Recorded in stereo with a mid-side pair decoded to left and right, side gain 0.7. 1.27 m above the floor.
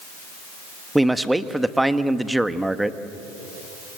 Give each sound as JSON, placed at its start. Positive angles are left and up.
{"t": 0.9, "sound": "a man speaking", "azimuth_deg": -5, "distance_m": 1.4}